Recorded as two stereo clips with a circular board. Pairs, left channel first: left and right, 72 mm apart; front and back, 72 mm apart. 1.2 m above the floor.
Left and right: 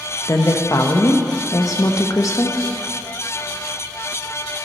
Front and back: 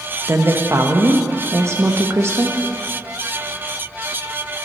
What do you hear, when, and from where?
0.3 s a woman speaking: 130° left, 1.2 m